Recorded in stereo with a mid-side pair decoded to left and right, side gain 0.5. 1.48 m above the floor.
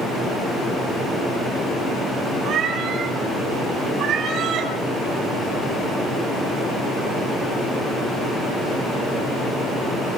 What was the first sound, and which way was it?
A cat meowing, 65° right.